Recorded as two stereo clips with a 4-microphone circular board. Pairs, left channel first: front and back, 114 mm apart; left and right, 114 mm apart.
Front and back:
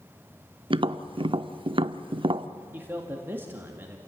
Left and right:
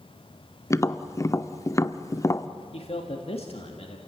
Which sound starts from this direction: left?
A man speaking, at 2.7 s.